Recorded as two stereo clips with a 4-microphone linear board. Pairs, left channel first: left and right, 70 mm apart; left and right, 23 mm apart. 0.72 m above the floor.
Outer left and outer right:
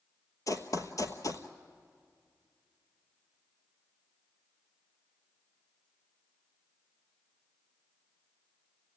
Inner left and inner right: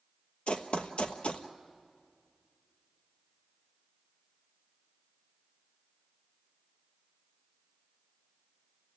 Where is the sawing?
I don't hear sawing.